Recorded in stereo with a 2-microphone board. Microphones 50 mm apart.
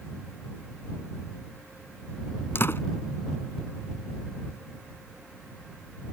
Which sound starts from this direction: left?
A door slam, at 2.5 s.